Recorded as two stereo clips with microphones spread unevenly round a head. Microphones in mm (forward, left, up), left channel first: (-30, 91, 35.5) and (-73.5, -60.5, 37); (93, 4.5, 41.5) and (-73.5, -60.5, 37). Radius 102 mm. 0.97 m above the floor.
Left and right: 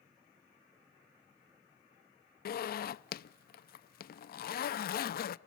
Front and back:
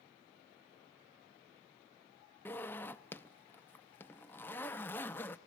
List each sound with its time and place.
2.5 s a zipper: 100° left, 0.5 m